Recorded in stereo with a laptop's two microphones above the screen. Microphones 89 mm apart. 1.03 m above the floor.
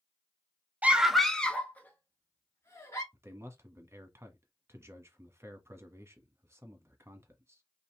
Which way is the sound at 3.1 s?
30° right (ahead or behind).